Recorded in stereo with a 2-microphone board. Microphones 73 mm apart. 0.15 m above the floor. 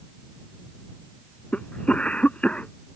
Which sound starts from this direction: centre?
A cough, at 1.5 s.